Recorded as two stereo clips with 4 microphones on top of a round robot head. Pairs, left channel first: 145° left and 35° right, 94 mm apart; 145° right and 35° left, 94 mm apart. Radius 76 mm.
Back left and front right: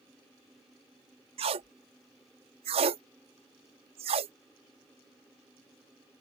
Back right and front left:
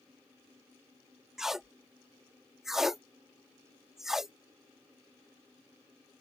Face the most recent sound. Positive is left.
turn(degrees=-50)